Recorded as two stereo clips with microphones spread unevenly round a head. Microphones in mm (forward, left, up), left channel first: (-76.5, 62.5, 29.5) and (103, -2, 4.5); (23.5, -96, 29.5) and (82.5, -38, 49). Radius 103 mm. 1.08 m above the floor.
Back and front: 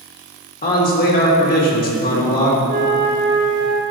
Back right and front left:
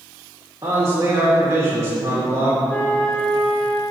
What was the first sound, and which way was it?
A man speaking, 115° left.